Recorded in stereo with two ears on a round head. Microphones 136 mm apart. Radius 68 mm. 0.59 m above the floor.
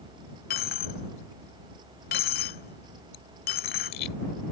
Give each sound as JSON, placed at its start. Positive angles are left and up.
{"t": 0.5, "sound": "a dropped coin", "side_deg": 70}